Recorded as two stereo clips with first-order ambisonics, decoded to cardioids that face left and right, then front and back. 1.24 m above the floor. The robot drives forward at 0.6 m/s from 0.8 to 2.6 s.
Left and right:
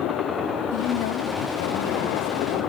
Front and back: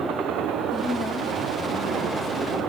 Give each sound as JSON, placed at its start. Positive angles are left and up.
{"t": 0.7, "sound": "a woman speaking", "azimuth_deg": 85, "distance_m": 1.8}